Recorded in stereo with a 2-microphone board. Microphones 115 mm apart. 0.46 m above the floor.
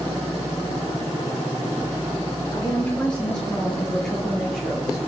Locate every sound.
2.5 s a woman speaking: 15° left (ahead or behind), 6 m; by 5.0 s 5° right (ahead or behind), 7 m